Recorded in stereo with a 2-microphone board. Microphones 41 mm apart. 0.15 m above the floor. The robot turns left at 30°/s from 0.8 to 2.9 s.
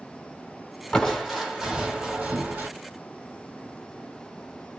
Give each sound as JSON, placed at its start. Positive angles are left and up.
{"t": 0.9, "sound": "crushing", "azimuth_deg": 10, "distance_m": 1.4}